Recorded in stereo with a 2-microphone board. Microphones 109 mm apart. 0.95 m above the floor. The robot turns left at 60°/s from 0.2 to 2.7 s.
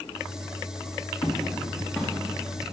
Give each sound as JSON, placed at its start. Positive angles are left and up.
{"t": 1.2, "sound": "footsteps", "side_deg": 55, "distance_m": 2.5}